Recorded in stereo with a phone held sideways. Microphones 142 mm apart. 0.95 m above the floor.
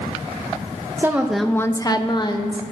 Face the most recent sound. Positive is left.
turn(degrees=35)  # may be behind; listen again after turning